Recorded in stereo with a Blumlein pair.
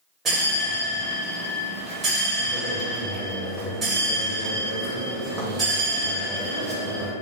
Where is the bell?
20° right, 0.9 m.